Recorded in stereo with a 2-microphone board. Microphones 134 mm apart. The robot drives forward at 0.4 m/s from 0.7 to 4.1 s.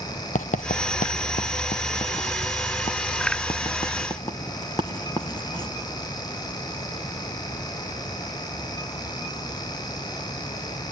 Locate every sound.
0.3 s writing: 70° left (ahead or behind), 0.7 m; by 5.7 s 30° left (ahead or behind), 1.4 m